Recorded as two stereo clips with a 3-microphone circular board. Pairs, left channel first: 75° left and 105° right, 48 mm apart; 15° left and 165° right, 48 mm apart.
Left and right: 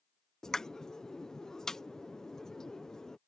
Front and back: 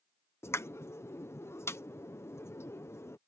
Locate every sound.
0.4 s a pop: straight ahead